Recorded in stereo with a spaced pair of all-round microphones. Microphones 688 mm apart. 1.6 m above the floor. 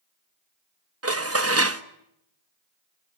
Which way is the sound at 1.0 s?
20° right (ahead or behind).